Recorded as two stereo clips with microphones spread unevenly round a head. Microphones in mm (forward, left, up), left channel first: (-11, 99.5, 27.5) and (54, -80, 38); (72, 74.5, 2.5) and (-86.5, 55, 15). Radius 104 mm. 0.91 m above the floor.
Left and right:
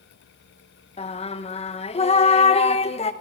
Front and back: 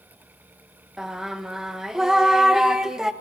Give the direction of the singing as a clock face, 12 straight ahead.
9 o'clock.